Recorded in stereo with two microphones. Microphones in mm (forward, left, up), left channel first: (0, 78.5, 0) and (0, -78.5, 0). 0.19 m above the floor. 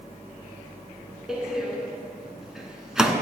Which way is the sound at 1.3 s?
5° right (ahead or behind).